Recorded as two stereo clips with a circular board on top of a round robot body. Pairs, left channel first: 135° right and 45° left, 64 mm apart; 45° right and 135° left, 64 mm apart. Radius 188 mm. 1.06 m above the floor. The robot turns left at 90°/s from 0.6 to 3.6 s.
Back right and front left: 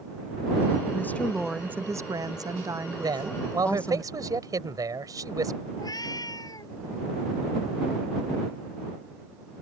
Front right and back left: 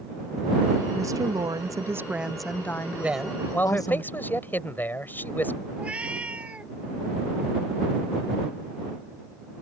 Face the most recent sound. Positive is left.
turn(degrees=-155)